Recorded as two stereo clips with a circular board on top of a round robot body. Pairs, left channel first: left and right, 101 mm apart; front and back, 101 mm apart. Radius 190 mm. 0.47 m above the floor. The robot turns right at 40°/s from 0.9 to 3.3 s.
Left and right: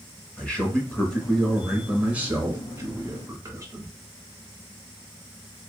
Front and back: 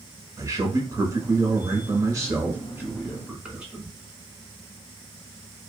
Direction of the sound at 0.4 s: 160° left.